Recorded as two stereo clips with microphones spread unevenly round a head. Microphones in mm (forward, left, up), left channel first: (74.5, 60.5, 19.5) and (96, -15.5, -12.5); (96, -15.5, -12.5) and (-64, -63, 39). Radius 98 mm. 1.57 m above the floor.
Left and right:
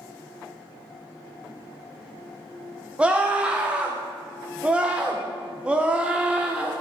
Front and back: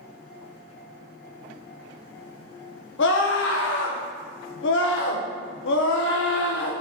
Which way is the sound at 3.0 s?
15° left.